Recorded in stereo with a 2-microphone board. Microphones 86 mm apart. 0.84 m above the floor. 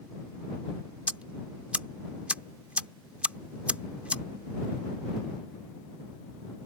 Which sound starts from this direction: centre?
Ticking, at 1.1 s.